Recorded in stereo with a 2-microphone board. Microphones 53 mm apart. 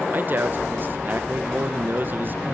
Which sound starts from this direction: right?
A man speaking, at 0.1 s.